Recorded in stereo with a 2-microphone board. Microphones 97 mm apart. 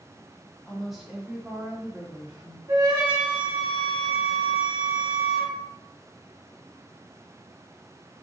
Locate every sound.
0.7 s a woman speaking: 5° left (ahead or behind), 1.2 m; by 2.6 s 50° right (ahead or behind), 1.2 m
2.7 s a flute: 50° right (ahead or behind), 1.7 m